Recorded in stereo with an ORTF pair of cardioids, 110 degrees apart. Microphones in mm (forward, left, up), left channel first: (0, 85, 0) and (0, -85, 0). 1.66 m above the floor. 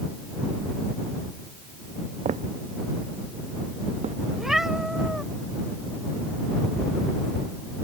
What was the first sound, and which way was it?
Footsteps, 40° right.